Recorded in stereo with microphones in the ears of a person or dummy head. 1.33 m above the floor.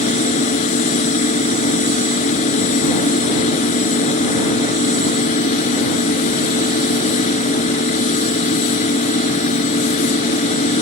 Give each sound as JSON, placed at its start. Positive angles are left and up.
{"t": 0.0, "sound": "a machine running", "side_deg": 45}